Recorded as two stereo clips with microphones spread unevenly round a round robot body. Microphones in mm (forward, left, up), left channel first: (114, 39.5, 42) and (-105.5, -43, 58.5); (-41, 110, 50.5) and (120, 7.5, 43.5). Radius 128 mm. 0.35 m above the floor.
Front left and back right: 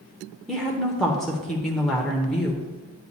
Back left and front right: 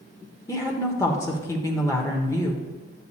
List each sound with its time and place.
0.5 s a woman speaking: 95° left, 0.9 m